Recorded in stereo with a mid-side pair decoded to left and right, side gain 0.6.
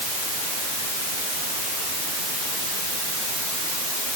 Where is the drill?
I don't hear a drill.